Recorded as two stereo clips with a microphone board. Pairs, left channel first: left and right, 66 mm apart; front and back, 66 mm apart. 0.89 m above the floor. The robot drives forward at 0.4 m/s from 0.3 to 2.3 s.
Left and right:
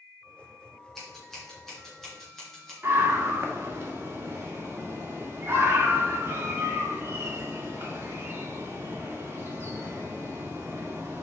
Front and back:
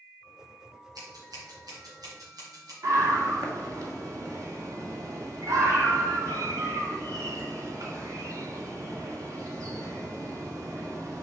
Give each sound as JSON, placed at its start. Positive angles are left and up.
{"t": 0.9, "sound": "scissors", "azimuth_deg": 175, "distance_m": 2.5}
{"t": 2.8, "sound": "a scream", "azimuth_deg": -145, "distance_m": 1.9}